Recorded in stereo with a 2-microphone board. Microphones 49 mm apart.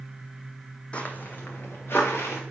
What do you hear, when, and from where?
0.9 s footsteps: 25° left (ahead or behind), 0.5 m; by 2.4 s 55° left (ahead or behind), 1.6 m